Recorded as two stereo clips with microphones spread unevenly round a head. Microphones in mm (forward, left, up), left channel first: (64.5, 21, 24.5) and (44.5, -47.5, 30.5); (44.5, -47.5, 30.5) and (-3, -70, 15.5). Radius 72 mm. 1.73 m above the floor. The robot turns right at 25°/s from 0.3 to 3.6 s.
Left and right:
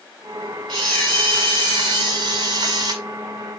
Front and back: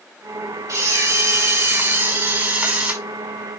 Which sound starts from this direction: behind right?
A camera shutter, at 0.7 s.